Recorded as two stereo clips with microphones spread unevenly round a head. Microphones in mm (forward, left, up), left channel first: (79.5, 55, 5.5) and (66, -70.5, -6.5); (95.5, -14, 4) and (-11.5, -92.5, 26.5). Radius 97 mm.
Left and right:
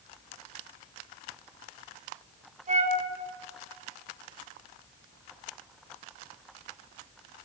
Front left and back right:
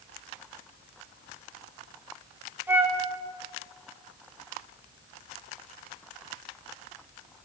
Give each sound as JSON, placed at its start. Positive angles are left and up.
{"t": 2.7, "sound": "a flute", "azimuth_deg": -70, "distance_m": 4.0}